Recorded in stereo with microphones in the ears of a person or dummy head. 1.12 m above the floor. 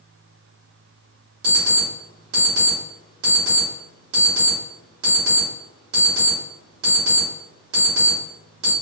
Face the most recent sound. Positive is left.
turn(degrees=-65)  # may be behind; listen again after turning